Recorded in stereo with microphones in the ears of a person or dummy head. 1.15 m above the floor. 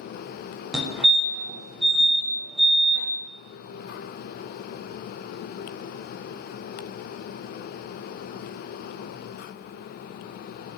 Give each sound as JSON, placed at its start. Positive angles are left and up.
{"t": 0.7, "sound": "a fire alarm", "side_deg": -5, "distance_m": 1.0}